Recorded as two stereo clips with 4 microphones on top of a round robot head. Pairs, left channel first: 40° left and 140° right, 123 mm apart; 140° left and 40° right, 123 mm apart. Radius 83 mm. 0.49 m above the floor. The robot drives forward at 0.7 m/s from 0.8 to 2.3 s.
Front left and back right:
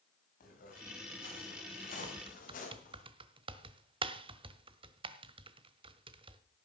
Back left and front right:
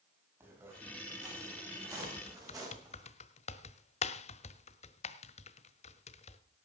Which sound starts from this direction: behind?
Typing on a keyboard, at 2.0 s.